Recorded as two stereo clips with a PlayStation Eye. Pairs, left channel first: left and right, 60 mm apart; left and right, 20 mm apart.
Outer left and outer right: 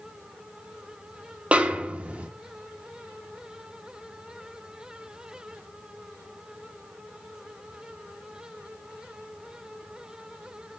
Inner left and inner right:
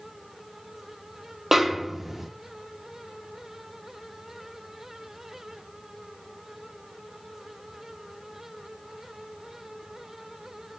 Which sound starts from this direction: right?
A snare drum, at 1.5 s.